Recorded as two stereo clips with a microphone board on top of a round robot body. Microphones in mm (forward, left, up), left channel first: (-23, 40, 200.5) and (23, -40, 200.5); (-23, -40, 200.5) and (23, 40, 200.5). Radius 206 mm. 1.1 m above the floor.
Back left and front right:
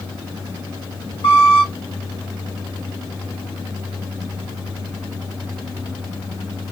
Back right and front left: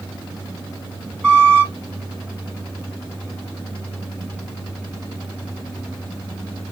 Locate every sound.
1.2 s a squeak: 155° left, 3.5 m